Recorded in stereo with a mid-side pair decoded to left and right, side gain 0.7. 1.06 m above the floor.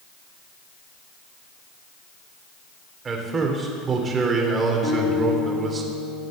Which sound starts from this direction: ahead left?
A guitar, at 4.8 s.